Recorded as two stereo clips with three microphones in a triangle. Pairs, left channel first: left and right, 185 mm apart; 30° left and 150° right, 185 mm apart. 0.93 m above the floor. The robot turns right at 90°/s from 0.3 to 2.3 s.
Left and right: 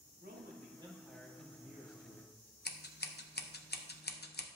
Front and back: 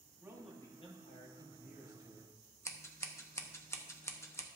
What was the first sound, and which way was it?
A man speaking, 75° right.